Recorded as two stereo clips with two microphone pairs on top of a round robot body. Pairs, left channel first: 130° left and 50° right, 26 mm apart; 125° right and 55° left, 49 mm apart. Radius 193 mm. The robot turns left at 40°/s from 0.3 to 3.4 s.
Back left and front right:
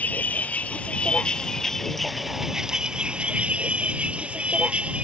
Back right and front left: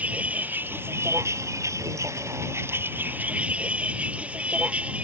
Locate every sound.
0.0 s a vehicle: 115° left; by 5.0 s 10° right